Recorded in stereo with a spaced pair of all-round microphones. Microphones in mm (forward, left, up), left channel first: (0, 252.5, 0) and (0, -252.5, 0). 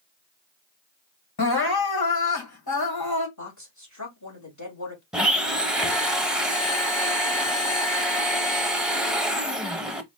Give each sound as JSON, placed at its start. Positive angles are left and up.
{"t": 1.4, "sound": "crying", "side_deg": 50, "distance_m": 1.4}
{"t": 3.4, "sound": "a woman speaking", "side_deg": 35, "distance_m": 3.0}
{"t": 5.1, "sound": "a blender", "side_deg": 0, "distance_m": 0.8}